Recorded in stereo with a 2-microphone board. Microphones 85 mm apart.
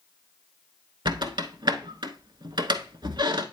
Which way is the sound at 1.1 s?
65° right (ahead or behind).